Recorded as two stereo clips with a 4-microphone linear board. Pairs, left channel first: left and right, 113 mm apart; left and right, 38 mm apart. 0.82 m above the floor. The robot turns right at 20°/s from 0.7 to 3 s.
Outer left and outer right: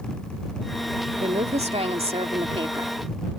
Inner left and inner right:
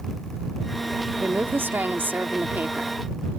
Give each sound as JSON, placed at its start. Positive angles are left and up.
{"t": 1.2, "sound": "a woman speaking", "azimuth_deg": -85}